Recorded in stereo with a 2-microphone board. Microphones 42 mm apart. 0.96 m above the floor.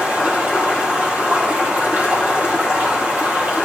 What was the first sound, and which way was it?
Running water, 40° right (ahead or behind).